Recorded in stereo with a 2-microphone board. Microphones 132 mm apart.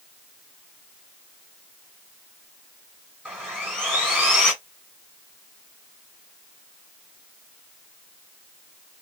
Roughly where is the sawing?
Centre.